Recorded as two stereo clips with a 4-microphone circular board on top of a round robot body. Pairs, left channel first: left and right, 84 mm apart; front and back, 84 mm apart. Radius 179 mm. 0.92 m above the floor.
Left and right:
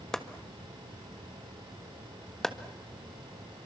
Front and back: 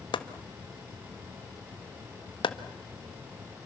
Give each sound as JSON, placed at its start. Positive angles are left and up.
{"t": 0.1, "sound": "chopping", "azimuth_deg": 5, "distance_m": 1.7}